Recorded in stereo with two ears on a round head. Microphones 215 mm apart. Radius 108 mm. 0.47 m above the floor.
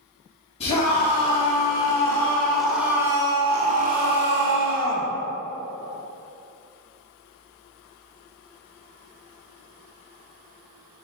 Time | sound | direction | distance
0.6 | a scream | 25° left (ahead or behind) | 3.5 m